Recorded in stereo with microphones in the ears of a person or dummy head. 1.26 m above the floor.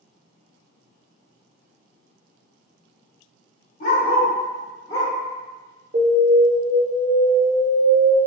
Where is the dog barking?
65° left (ahead or behind), 1.4 m; by 5.1 s 20° left (ahead or behind), 1.6 m.